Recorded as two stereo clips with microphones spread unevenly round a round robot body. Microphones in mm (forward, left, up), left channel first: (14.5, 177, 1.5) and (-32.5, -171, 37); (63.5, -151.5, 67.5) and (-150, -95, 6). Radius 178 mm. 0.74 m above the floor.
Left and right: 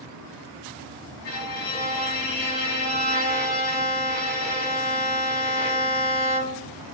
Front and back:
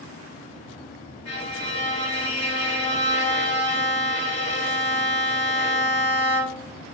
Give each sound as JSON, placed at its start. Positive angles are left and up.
{"t": 1.2, "sound": "a violin", "azimuth_deg": 55, "distance_m": 0.8}